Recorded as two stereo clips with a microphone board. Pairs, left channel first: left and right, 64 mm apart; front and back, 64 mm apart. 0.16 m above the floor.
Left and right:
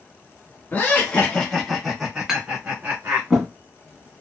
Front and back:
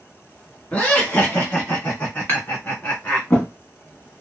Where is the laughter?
55° left, 1.3 m; by 3.3 s 45° right, 1.6 m.